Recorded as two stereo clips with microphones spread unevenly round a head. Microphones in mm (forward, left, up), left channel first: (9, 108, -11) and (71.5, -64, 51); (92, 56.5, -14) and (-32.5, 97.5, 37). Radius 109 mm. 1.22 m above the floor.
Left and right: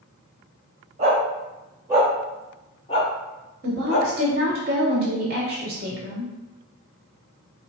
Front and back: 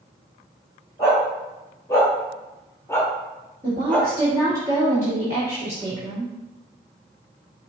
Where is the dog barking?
110° right, 1.6 m; by 4.1 s 80° left, 1.3 m.